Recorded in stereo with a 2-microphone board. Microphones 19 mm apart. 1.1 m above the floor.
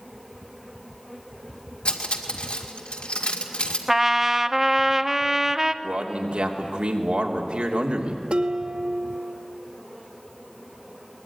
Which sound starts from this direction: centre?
A trumpet, at 3.9 s.